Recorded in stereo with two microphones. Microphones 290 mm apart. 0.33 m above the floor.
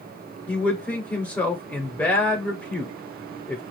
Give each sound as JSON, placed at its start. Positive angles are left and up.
{"t": 0.5, "sound": "a man speaking", "side_deg": 5, "distance_m": 0.9}